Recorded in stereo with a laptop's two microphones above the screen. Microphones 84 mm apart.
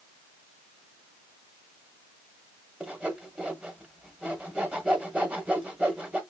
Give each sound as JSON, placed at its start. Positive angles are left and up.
{"t": 2.8, "sound": "sawing", "side_deg": -15, "distance_m": 1.2}